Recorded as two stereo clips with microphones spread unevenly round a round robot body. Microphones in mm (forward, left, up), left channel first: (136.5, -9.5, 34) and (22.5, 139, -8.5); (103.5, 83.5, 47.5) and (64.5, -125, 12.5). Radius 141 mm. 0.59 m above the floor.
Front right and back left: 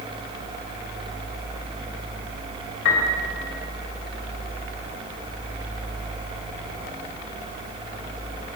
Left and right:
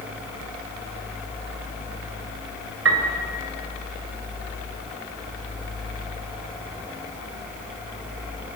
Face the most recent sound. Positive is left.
turn(degrees=-100)